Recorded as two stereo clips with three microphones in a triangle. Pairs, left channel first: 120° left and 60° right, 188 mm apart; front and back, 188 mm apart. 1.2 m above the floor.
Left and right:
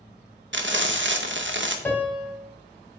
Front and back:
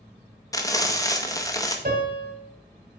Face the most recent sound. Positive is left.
turn(degrees=-160)